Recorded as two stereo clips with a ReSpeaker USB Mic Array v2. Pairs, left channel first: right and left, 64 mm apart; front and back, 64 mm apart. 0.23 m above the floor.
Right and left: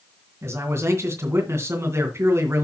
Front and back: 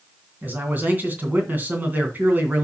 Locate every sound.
0.4 s a man speaking: 125° left, 2.5 m